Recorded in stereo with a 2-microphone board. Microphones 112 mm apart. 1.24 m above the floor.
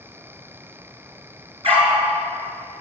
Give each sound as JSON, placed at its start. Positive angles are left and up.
{"t": 1.6, "sound": "a dog barking", "side_deg": -55, "distance_m": 7.0}